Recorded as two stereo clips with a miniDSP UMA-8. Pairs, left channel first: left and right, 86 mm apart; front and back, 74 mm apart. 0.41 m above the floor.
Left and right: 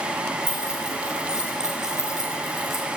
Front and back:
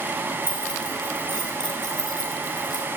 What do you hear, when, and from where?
0.4 s keys jangling: 10° right, 6.5 m; by 2.9 s 5° right, 5 m